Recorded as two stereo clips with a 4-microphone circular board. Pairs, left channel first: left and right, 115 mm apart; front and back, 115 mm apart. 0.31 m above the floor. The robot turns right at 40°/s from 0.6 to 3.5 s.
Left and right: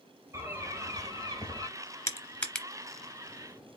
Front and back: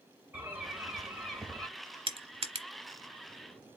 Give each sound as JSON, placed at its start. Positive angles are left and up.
{"t": 0.3, "sound": "a bird", "azimuth_deg": -125, "distance_m": 1.0}
{"t": 2.1, "sound": "crushing", "azimuth_deg": 155, "distance_m": 0.7}